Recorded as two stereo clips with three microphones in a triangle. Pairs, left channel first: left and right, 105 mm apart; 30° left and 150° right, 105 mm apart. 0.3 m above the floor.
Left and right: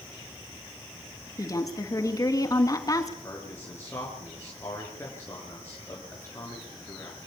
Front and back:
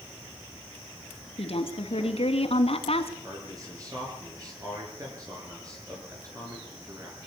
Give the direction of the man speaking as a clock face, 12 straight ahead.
7 o'clock.